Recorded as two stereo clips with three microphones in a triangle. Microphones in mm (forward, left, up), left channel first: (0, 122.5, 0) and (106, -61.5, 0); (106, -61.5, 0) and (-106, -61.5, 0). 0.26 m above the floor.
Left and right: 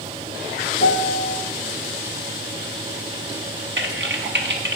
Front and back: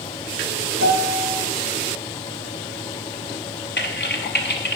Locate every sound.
0.8 s a piano: 165° left, 0.9 m
3.8 s typing on a keyboard: 35° right, 1.0 m